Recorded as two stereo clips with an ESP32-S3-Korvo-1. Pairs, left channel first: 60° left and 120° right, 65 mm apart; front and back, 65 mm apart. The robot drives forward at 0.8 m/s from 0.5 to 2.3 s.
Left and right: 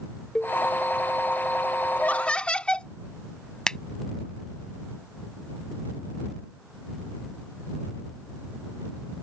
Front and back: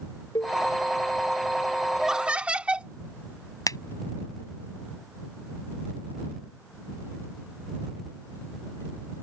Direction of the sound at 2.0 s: 95° left.